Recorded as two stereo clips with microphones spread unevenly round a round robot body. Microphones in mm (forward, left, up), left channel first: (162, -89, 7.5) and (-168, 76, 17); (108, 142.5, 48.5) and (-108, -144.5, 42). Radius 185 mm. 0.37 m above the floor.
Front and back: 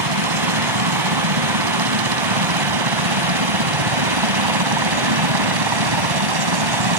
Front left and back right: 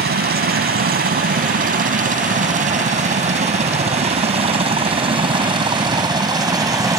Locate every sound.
0.0 s a helicopter: 170° left; by 7.0 s 155° left